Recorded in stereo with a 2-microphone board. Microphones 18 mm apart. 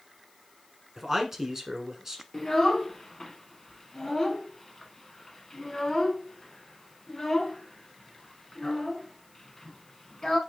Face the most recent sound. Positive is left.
turn(degrees=30)  # may be behind; listen again after turning